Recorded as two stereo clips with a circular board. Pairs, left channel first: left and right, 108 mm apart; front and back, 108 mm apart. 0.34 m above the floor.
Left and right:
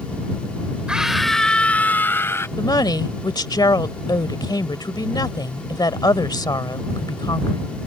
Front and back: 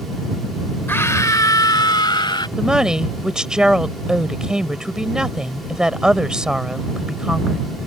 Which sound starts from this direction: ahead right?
A scream, at 0.9 s.